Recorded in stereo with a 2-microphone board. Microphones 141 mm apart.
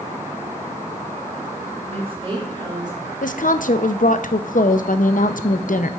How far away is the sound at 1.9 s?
About 3 m.